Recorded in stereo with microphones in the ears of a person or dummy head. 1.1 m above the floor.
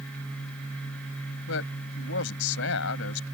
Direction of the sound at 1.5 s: 70° left (ahead or behind).